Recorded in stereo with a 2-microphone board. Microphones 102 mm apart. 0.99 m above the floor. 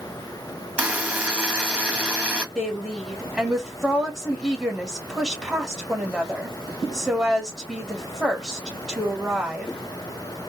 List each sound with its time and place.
0.8 s a buzzer: 15° right (ahead or behind), 1.3 m
2.5 s a woman speaking: centre (ahead or behind), 1.8 m